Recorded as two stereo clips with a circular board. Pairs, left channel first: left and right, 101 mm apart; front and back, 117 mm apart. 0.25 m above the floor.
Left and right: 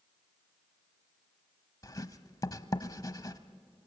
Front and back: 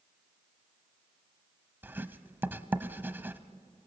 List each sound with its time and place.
1.8 s writing: 115° left, 1.0 m